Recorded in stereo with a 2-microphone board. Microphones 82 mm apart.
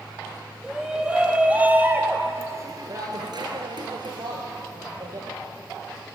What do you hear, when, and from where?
0.6 s a shout: 10° right (ahead or behind), 4.5 m; by 5.3 s 50° right (ahead or behind), 4 m